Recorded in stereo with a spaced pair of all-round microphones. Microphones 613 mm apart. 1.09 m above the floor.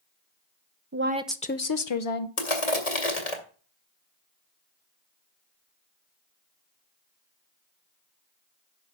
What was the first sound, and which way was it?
A woman speaking, 25° right (ahead or behind).